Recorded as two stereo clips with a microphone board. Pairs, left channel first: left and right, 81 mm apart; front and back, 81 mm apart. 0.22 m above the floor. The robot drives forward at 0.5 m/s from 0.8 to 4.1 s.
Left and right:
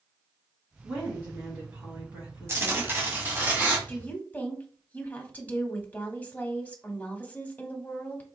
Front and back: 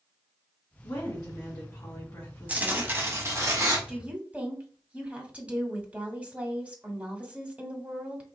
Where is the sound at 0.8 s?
25° right, 2 m; by 2.9 s 55° right, 1.5 m.